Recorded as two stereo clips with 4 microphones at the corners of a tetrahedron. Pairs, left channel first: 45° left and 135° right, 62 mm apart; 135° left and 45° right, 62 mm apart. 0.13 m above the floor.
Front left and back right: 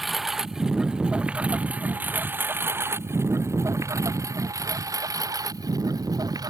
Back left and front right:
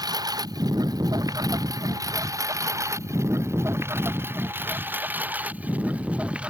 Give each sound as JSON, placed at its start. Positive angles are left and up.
{"t": 0.0, "sound": "a lawn mower", "azimuth_deg": -45}